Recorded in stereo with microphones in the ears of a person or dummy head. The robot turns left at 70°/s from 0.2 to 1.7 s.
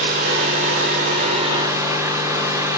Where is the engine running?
55° right, 2.5 m; by 2.8 s 160° right, 2.5 m.